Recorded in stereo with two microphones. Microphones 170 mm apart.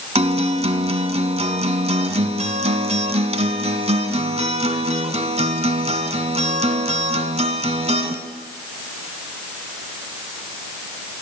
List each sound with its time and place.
0.1 s a guitar: 40° right (ahead or behind), 1.1 m